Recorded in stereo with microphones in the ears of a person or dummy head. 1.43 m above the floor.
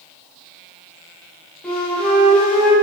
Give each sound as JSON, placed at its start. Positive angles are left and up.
{"t": 1.6, "sound": "a flute", "side_deg": 5, "distance_m": 1.8}